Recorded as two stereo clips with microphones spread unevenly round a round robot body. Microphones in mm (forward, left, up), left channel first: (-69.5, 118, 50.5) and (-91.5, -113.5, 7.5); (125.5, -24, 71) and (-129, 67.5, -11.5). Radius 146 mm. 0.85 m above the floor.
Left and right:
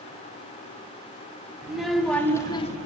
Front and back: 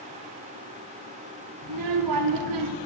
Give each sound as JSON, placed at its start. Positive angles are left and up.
{"t": 1.6, "sound": "a child speaking", "azimuth_deg": 175, "distance_m": 1.3}